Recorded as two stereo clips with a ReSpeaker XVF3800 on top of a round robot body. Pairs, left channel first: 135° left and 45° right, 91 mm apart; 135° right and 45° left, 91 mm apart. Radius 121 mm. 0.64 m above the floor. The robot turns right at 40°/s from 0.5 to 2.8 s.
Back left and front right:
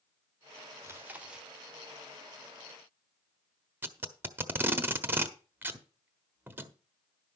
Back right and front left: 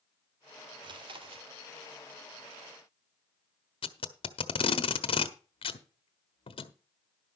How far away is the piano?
I don't hear a piano.